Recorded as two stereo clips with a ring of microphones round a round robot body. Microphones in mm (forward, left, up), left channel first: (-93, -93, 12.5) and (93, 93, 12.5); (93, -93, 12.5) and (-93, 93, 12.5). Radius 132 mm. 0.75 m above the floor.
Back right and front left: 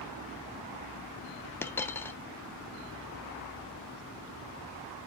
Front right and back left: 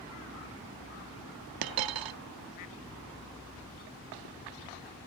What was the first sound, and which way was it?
A dropped coin, 145° left.